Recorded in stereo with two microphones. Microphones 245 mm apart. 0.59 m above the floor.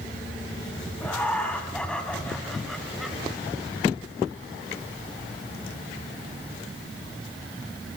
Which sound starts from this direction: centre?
Laughter, at 1.0 s.